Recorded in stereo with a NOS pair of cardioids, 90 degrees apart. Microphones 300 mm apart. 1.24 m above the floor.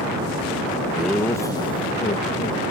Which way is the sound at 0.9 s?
Straight ahead.